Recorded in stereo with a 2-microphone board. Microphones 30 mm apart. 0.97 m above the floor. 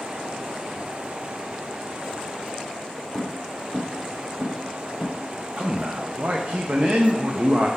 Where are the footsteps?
40° right (ahead or behind), 2 m; by 5.2 s 65° right (ahead or behind), 2 m.